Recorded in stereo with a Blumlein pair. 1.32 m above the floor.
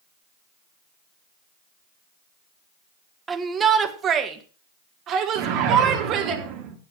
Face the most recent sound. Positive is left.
turn(degrees=-45)